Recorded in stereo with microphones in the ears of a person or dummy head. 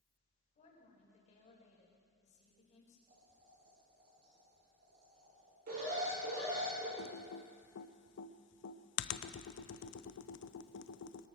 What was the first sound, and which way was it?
A woman speaking, 35° left (ahead or behind).